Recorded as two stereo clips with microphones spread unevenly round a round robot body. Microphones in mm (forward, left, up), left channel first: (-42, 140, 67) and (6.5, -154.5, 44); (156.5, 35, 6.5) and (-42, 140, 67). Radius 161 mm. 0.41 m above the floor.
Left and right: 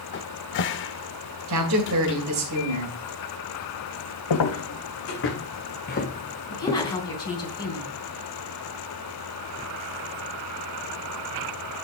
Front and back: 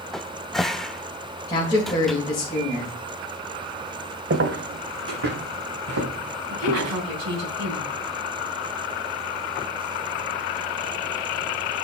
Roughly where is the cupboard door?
Ahead left.